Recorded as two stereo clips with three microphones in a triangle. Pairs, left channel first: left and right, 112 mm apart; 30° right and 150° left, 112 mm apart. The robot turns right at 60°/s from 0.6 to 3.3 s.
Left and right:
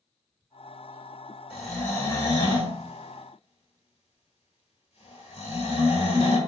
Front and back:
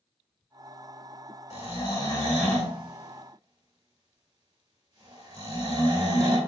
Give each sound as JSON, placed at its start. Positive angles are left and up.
{"t": 1.5, "sound": "snoring", "azimuth_deg": -10, "distance_m": 1.6}